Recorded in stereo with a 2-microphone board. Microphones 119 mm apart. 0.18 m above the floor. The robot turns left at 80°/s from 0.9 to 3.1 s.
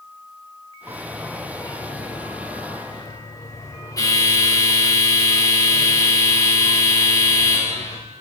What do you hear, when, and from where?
0.9 s a bell: 155° right, 5.5 m; by 8.0 s 30° left, 5.5 m